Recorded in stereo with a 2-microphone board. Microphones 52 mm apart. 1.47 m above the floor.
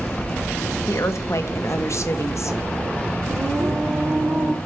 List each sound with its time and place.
0.9 s a woman speaking: 60° left (ahead or behind), 1.3 m
3.3 s singing: 30° right (ahead or behind), 5.5 m